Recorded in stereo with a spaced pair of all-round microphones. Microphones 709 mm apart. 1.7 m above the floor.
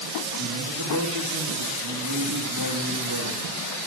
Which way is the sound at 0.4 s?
30° right (ahead or behind).